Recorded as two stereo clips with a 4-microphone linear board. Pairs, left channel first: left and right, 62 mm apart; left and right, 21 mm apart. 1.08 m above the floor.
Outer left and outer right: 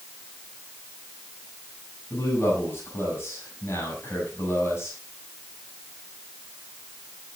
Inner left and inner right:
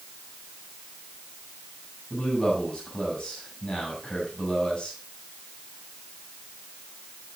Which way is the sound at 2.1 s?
45° left (ahead or behind).